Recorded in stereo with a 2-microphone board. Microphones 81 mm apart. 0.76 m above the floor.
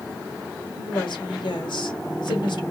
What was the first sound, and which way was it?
A woman speaking, 80° left.